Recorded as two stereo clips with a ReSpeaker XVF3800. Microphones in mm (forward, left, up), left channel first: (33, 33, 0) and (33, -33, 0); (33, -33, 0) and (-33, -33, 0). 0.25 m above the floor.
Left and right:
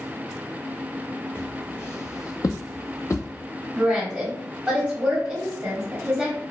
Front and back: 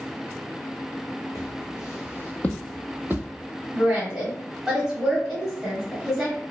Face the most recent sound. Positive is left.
turn(degrees=-130)